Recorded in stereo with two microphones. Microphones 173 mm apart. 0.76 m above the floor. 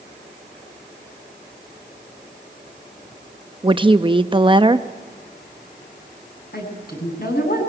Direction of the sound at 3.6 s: 30° right (ahead or behind).